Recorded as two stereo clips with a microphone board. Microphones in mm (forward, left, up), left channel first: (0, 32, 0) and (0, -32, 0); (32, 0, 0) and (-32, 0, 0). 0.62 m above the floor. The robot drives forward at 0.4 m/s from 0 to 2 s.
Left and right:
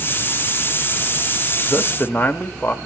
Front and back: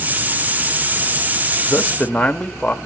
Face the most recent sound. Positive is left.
turn(degrees=70)